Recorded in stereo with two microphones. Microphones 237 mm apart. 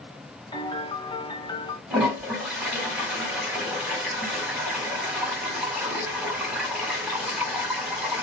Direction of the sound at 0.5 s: 20° left (ahead or behind).